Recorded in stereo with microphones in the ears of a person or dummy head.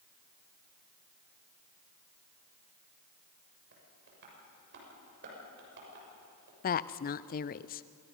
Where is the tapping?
60° right (ahead or behind), 6.5 m.